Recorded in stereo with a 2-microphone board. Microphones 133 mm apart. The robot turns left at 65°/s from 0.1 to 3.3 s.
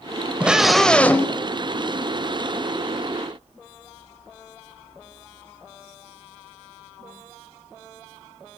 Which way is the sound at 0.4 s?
10° right (ahead or behind).